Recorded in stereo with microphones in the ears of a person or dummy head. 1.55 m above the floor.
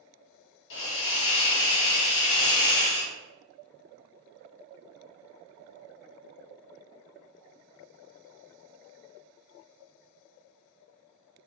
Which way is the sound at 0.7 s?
65° left (ahead or behind).